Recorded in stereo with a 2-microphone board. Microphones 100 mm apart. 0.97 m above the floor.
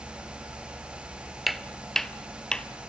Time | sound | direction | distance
1.5 | footsteps | centre (ahead or behind) | 1.0 m